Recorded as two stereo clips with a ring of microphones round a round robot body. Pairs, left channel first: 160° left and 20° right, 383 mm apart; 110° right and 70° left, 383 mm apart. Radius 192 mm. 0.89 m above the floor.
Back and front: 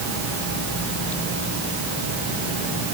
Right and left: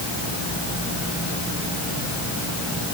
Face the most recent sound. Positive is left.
No sound to turn to.